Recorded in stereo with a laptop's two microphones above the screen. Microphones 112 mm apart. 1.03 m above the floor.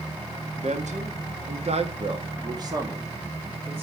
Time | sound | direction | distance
0.6 | a man speaking | 75° right (ahead or behind) | 1.5 m